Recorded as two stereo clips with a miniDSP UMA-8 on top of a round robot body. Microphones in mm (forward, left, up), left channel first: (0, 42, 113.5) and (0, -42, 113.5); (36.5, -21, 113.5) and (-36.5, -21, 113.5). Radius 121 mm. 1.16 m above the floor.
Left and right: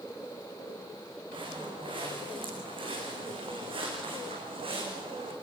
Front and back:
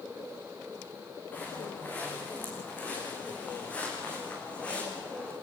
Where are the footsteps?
70° right, 7 m; by 5.3 s 75° right, 5.5 m.